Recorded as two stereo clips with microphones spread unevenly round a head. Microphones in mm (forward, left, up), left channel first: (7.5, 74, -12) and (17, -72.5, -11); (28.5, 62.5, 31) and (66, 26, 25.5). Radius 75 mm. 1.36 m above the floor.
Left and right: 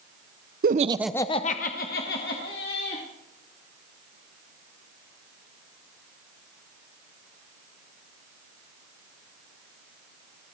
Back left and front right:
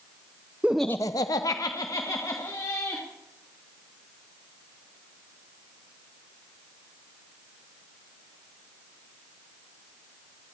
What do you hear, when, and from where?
0.6 s laughter: 120° right, 0.7 m; by 3.0 s 115° left, 2.5 m